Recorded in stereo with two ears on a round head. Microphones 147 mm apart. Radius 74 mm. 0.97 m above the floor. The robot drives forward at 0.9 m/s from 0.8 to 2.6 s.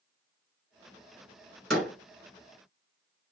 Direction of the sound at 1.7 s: Centre (ahead or behind).